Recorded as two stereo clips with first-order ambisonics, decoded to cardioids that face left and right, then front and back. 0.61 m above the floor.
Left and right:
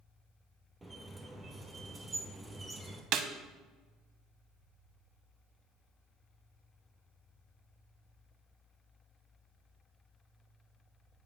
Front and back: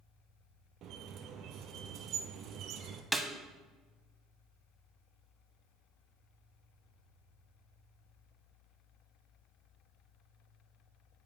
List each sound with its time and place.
0.8 s a squeak: 165° right, 0.8 m
3.1 s a snare drum: 95° right, 0.5 m